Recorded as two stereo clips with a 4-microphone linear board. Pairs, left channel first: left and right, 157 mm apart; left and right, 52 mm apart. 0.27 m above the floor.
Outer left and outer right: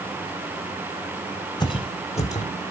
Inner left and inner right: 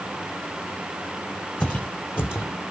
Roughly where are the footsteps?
Left.